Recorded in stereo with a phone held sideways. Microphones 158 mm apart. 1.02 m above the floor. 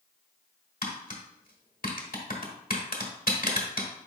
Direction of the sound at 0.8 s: 65° left (ahead or behind).